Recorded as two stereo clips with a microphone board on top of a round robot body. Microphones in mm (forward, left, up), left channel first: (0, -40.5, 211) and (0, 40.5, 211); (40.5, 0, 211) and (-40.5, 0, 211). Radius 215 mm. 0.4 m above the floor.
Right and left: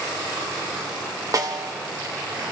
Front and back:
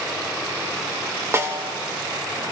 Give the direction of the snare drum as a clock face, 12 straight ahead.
8 o'clock.